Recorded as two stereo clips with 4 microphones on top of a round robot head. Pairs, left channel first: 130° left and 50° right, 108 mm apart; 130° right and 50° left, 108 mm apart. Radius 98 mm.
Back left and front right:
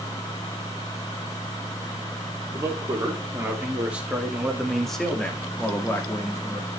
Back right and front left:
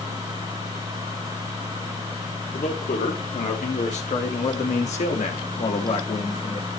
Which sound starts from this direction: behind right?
A man speaking, at 2.5 s.